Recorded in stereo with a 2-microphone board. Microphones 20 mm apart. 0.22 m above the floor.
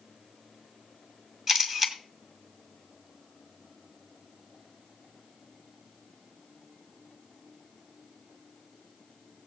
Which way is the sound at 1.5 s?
20° right (ahead or behind).